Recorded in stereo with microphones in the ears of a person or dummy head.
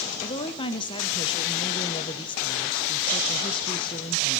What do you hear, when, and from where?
0.2 s a woman speaking: 25° left (ahead or behind), 0.6 m